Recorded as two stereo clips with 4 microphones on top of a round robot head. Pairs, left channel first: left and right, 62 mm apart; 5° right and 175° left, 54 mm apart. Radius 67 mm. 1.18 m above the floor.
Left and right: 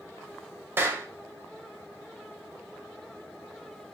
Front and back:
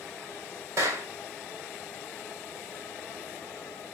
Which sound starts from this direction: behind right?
A clap, at 0.8 s.